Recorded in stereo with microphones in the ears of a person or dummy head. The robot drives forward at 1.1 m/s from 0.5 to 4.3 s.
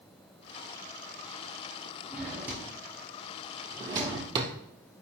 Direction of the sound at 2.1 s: 15° right (ahead or behind).